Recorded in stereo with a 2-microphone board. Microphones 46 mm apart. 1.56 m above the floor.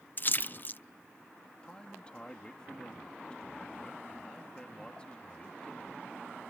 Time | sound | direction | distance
0.2 | a splash | 40° left (ahead or behind) | ?
1.6 | a man speaking | 20° left (ahead or behind) | ?